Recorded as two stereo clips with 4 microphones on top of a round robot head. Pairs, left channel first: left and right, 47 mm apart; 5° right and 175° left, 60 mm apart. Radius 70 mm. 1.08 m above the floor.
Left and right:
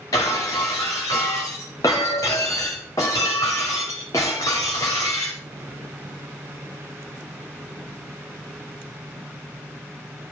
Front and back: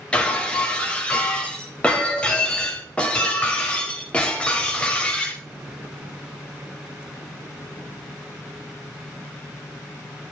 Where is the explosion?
I don't hear an explosion.